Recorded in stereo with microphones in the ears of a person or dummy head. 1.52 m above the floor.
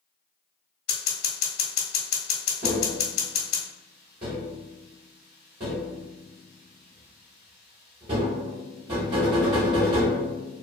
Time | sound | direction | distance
0.9 | scissors | 75° left (ahead or behind) | 1.0 m
2.6 | tapping | 25° right (ahead or behind) | 0.8 m